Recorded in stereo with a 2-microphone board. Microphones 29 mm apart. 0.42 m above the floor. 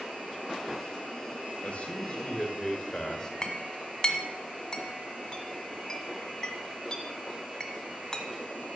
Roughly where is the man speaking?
Left.